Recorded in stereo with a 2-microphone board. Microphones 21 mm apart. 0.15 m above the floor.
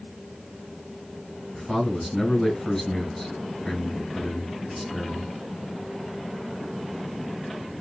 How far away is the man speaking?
About 1.6 m.